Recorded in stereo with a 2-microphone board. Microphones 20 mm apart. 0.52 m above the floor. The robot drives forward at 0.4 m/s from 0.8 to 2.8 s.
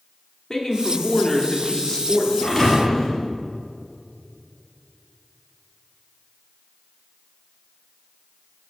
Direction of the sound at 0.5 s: 25° left (ahead or behind).